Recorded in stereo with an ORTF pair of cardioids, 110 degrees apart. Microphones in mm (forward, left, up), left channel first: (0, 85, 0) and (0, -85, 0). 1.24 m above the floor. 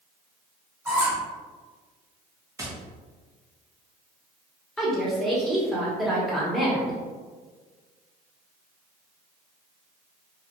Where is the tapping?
20° right, 0.8 m.